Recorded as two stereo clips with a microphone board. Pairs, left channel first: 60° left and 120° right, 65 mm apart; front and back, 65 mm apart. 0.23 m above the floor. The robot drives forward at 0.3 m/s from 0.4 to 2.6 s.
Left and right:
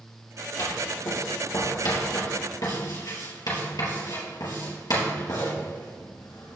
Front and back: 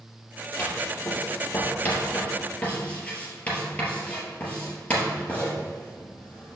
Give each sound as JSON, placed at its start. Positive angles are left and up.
{"t": 0.6, "sound": "writing", "azimuth_deg": 60, "distance_m": 3.5}